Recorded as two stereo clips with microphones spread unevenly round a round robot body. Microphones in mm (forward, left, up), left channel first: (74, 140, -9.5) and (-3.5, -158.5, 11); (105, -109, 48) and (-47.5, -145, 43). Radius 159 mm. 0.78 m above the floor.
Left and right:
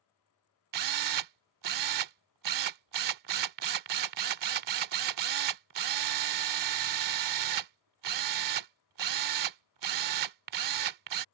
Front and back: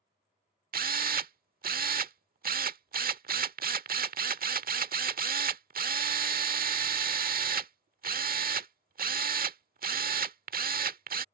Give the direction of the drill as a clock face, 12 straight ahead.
5 o'clock.